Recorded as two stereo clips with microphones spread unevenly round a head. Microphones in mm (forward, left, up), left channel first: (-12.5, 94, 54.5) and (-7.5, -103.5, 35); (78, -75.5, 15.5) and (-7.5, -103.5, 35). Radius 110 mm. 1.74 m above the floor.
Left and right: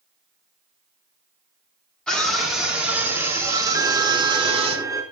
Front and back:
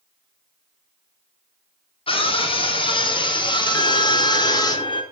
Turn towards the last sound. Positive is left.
turn(degrees=-15)